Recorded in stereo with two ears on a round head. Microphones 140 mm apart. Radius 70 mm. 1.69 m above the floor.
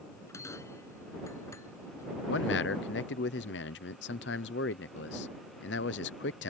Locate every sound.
0.1 s a bell: 20° left (ahead or behind)
2.3 s a man speaking: 85° left